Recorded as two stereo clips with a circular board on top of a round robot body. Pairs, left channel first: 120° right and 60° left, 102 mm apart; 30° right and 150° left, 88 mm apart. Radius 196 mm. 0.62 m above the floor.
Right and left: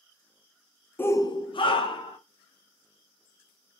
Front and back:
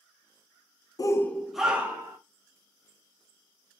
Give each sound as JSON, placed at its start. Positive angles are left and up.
{"t": 1.0, "sound": "a shout", "azimuth_deg": -55, "distance_m": 0.6}